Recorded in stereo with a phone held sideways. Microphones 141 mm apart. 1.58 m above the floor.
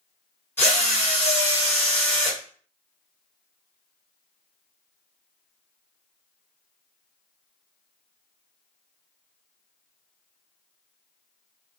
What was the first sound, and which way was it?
A drill, 15° left (ahead or behind).